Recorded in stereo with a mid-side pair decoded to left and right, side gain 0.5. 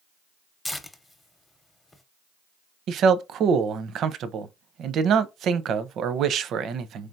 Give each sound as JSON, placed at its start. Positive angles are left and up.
{"t": 0.7, "sound": "tearing paper", "azimuth_deg": 15, "distance_m": 0.8}
{"t": 2.9, "sound": "a man speaking", "azimuth_deg": -60, "distance_m": 0.6}